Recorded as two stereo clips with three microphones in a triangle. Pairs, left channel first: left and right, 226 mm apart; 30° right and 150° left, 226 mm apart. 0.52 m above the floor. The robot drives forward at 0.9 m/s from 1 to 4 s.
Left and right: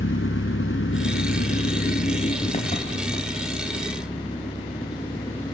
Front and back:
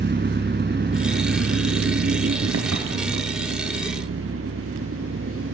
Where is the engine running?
110° left, 1.4 m; by 5.5 s 160° left, 3.5 m.